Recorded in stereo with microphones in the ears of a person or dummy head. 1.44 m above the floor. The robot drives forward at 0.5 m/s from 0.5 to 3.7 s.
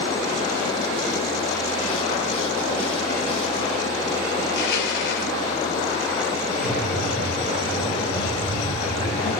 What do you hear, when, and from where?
4.4 s crushing: 70° left (ahead or behind), 4 m
6.6 s breathing: 65° left (ahead or behind), 8.5 m